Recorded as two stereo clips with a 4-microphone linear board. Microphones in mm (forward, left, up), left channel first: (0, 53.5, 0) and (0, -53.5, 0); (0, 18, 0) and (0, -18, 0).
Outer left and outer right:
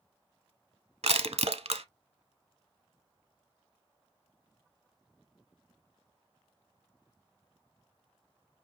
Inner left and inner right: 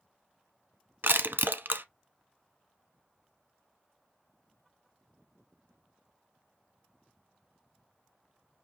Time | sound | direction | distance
1.0 | crushing | 75° right (ahead or behind) | 0.7 m